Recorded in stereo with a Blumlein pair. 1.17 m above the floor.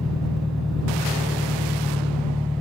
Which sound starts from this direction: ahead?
An engine running, at 0.0 s.